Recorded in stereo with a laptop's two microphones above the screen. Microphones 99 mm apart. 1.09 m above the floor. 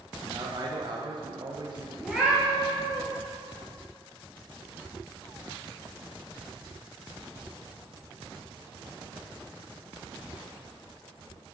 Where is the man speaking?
50° right (ahead or behind), 0.6 m.